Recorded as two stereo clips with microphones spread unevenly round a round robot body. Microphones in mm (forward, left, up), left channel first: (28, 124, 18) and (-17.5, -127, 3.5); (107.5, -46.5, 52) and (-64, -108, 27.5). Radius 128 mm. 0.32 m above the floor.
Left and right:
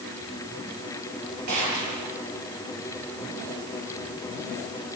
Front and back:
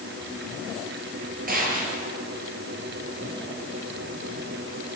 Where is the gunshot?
125° right, 8 m.